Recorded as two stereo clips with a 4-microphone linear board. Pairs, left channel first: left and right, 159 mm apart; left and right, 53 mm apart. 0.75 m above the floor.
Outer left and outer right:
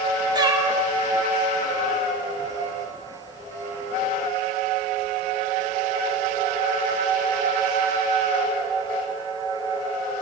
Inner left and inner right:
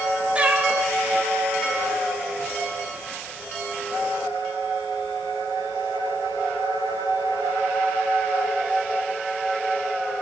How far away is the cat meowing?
About 0.5 m.